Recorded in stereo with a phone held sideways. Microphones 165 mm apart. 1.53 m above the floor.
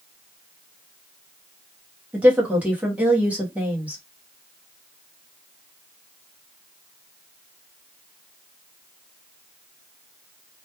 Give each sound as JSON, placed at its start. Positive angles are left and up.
{"t": 2.1, "sound": "a woman speaking", "side_deg": -10, "distance_m": 0.8}